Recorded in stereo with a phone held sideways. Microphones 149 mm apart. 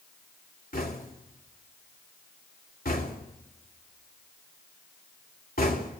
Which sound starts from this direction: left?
Knocking, at 0.7 s.